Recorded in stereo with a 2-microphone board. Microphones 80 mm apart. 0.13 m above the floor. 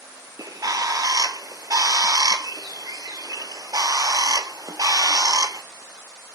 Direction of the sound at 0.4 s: 50° right (ahead or behind).